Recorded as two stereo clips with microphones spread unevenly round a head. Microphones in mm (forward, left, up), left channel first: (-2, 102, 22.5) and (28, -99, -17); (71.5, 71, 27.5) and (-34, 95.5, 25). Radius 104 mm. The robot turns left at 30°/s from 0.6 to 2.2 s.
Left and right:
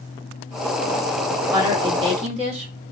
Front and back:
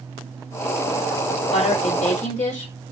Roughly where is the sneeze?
I don't hear a sneeze.